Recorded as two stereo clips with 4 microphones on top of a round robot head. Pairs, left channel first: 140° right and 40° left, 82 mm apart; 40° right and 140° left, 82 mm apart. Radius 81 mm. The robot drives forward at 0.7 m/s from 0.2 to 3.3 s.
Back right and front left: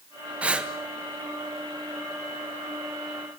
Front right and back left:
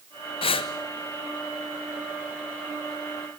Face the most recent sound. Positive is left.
turn(degrees=-130)